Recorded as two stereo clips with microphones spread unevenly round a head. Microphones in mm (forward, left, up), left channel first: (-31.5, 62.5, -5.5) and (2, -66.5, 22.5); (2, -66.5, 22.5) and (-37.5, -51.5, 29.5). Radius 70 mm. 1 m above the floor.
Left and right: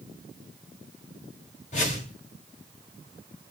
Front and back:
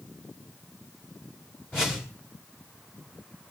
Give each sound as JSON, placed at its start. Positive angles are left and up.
{"t": 1.7, "sound": "a whoosh", "azimuth_deg": 60, "distance_m": 3.5}